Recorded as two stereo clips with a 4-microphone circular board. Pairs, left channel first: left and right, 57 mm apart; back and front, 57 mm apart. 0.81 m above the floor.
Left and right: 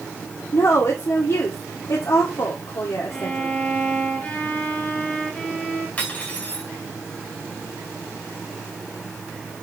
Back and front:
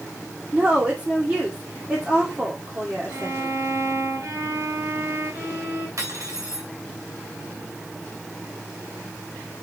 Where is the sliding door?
No sliding door in this recording.